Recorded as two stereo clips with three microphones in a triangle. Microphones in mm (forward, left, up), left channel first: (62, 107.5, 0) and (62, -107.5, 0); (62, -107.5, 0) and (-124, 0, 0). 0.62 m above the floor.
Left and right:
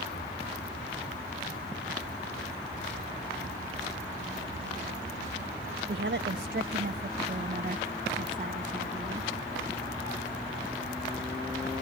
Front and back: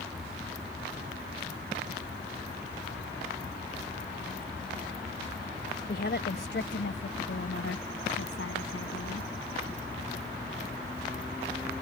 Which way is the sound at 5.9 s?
70° right.